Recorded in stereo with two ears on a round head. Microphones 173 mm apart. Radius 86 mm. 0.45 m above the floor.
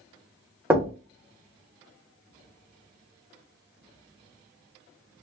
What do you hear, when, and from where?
0.7 s knocking: 10° right (ahead or behind), 0.6 m